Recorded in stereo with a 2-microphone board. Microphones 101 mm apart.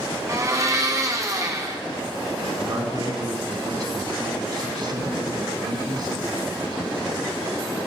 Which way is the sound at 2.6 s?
45° right (ahead or behind).